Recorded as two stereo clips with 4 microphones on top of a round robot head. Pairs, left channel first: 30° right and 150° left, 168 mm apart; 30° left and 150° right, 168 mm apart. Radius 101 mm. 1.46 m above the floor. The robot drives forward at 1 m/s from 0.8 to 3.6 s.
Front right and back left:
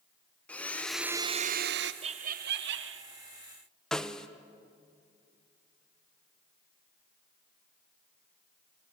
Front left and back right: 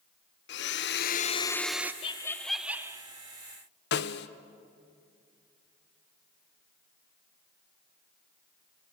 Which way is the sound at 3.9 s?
55° left.